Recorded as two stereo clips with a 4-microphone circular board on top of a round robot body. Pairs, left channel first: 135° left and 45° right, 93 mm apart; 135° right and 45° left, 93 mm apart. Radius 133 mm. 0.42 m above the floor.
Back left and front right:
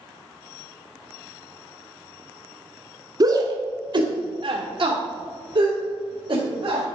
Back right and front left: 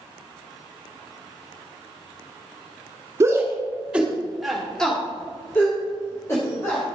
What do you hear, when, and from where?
3.2 s a shout: 10° right, 1.6 m; by 6.8 s 80° right, 2.5 m